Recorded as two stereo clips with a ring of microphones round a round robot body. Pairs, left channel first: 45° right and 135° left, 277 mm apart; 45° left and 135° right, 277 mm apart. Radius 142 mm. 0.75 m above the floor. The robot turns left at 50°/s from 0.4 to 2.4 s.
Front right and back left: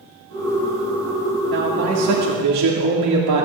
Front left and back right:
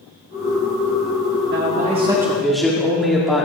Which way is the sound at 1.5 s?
Straight behind.